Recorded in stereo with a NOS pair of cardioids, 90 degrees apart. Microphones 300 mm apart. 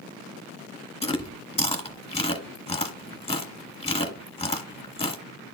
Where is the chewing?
20° left, 2 m.